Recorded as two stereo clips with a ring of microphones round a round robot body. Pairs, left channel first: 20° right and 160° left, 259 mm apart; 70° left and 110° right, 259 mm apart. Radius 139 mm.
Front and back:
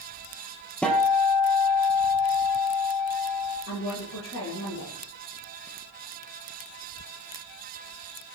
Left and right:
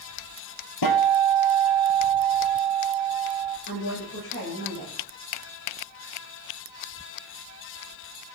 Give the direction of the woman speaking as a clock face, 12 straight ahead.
11 o'clock.